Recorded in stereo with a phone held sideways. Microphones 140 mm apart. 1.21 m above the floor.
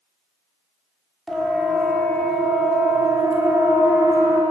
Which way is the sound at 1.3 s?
5° left (ahead or behind).